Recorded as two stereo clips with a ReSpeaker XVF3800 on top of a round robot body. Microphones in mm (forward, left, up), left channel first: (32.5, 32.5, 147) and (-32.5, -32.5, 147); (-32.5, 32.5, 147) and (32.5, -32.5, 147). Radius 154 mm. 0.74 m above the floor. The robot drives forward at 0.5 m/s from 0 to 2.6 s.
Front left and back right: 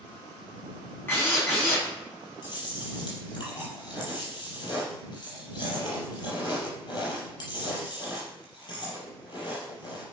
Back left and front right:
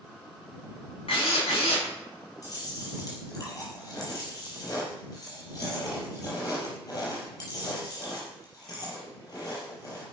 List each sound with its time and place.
1.1 s a drill: 110° left, 6 m; by 1.9 s 115° left, 6 m
2.4 s chewing: 85° left, 5 m